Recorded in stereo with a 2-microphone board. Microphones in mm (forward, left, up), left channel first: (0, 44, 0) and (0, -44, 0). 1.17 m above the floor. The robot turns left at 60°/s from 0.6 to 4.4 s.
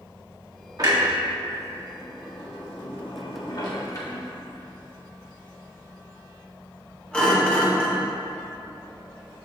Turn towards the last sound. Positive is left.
turn(degrees=10)  # may be behind; listen again after turning